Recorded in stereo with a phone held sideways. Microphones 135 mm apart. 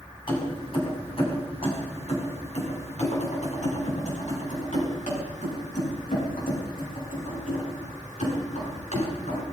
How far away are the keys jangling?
About 6 m.